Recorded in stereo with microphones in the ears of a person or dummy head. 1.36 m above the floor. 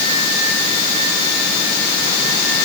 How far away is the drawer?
No drawer in this recording.